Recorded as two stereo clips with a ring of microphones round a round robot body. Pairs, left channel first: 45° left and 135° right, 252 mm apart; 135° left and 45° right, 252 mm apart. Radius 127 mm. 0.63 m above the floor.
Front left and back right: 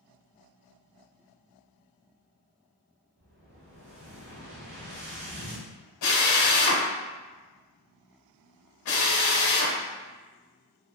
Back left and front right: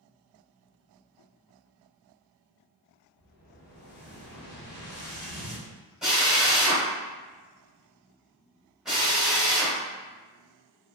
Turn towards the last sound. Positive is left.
turn(degrees=45)